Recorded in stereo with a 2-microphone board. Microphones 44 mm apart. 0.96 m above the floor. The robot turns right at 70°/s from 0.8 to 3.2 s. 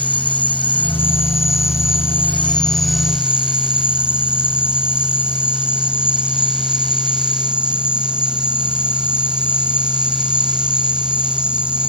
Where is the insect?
35° left; by 11.9 s 155° right.